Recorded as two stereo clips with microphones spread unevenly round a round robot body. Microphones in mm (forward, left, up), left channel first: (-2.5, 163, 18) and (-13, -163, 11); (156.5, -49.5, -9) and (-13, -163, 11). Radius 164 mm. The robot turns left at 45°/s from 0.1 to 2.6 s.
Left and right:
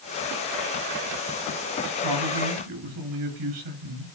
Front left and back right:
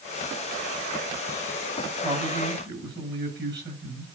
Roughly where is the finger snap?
No finger snap in this recording.